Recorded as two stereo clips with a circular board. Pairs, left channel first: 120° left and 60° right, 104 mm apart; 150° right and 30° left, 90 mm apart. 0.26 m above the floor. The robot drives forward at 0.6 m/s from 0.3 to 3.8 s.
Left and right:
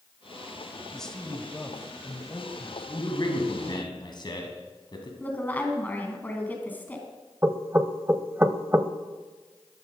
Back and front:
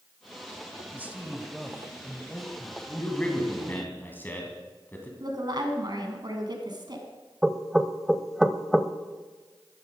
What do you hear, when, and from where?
0.9 s a man speaking: 45° left, 1.3 m; by 3.8 s 165° left, 1.8 m
3.0 s a man speaking: 135° left, 1.9 m; by 5.1 s 145° left, 2 m
5.2 s a woman speaking: 50° left, 2.5 m
7.4 s knocking: 50° right, 0.6 m